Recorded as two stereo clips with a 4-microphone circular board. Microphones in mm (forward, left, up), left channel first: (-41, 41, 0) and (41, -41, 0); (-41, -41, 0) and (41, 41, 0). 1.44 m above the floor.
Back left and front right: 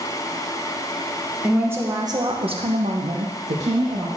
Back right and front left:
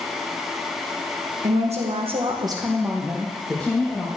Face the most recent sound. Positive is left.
turn(degrees=-65)